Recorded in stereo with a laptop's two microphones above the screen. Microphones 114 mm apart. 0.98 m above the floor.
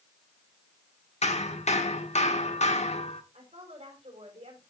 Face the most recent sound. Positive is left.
turn(degrees=-85)